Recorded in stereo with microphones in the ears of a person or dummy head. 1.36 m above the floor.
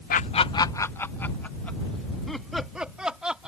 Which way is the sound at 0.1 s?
40° left (ahead or behind).